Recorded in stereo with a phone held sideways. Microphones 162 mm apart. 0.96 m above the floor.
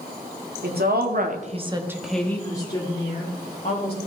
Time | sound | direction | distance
0.6 | a woman speaking | 80° right | 1.9 m